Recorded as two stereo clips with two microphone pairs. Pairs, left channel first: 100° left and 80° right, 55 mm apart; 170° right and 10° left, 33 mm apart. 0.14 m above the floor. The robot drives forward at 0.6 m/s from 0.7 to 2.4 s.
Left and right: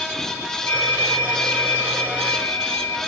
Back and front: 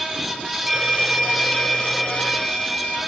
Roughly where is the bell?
Left.